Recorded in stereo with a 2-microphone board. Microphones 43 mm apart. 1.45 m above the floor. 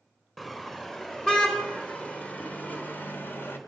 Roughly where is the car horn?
Centre.